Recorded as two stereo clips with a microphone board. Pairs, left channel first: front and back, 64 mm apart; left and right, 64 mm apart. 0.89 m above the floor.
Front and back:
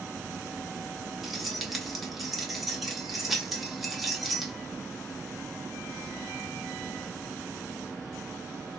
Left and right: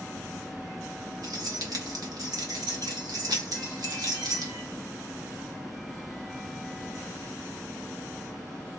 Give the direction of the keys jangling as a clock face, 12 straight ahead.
3 o'clock.